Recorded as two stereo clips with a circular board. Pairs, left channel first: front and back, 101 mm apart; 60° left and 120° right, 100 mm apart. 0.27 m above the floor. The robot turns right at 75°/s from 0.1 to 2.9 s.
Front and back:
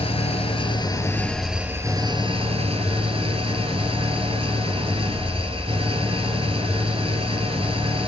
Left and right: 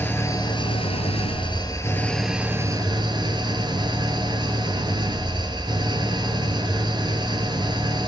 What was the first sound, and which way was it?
An engine running, 10° right.